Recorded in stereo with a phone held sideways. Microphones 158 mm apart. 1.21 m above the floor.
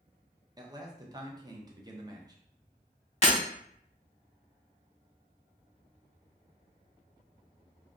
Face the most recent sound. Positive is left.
turn(degrees=40)  # may be behind; listen again after turning